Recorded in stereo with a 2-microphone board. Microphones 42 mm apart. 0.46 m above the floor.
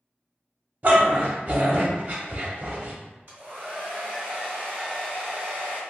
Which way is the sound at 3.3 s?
55° right (ahead or behind).